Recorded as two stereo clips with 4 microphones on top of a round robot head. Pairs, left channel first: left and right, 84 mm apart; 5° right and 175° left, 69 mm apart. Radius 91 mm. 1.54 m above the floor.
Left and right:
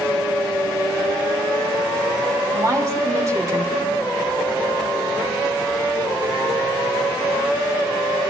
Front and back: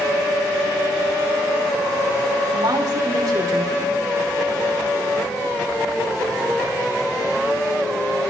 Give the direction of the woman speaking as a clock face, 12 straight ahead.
5 o'clock.